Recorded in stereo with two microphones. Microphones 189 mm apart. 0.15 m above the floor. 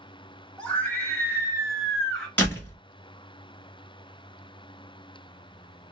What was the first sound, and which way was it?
A scream, 5° left (ahead or behind).